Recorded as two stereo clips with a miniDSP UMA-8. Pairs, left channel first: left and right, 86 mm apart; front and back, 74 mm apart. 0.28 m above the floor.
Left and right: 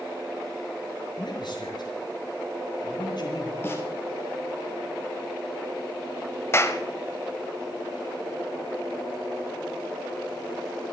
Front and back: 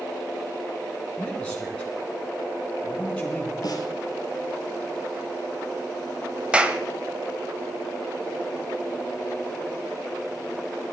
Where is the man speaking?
75° left, 3 m.